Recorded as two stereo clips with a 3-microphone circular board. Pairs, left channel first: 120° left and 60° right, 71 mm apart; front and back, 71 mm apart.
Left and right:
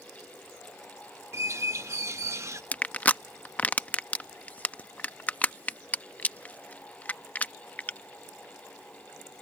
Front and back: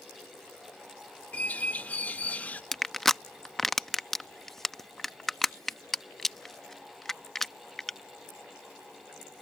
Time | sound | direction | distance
1.3 | a bird | 60° right | ?
2.7 | crushing | 80° left | ?